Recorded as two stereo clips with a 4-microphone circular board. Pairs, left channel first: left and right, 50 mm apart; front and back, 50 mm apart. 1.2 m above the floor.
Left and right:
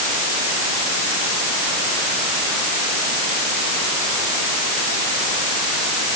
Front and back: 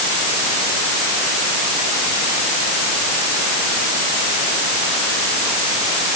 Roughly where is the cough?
I don't hear a cough.